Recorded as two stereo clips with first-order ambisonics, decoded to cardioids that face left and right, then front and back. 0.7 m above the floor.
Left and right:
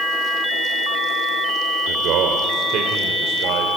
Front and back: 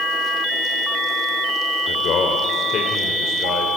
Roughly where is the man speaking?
Ahead right.